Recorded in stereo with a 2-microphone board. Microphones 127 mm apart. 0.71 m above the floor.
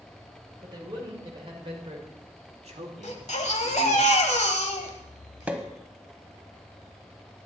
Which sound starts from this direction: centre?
A pop, at 5.5 s.